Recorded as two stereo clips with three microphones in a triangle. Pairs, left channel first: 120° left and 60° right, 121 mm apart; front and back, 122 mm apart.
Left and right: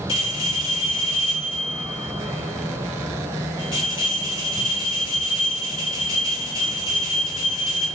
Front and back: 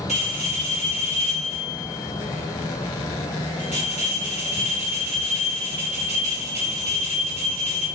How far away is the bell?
About 1.6 m.